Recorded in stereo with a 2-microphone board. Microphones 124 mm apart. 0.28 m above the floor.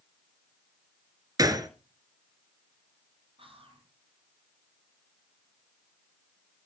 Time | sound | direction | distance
1.4 | a gunshot | 30° right (ahead or behind) | 1.7 m
3.4 | whispering | 45° right (ahead or behind) | 6 m